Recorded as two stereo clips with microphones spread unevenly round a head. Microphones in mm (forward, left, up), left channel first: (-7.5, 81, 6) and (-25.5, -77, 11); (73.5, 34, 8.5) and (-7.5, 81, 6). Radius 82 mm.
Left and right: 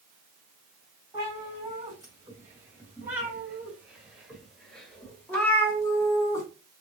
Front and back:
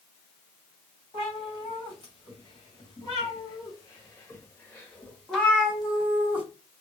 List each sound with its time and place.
1.1 s a cat meowing: 30° right, 2.5 m; by 6.5 s 105° left, 1.5 m